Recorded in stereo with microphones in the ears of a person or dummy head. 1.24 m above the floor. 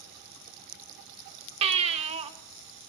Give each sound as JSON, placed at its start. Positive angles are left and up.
{"t": 1.6, "sound": "a baby crying", "side_deg": -35, "distance_m": 1.9}